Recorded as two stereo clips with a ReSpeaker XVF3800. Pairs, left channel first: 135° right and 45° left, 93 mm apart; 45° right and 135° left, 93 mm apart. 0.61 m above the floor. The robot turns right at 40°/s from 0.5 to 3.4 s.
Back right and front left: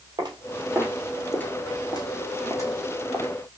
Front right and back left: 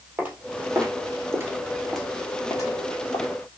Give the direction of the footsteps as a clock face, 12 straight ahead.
10 o'clock.